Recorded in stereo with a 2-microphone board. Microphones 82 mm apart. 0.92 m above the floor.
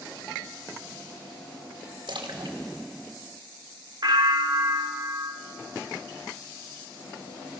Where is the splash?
70° right (ahead or behind), 2.5 m.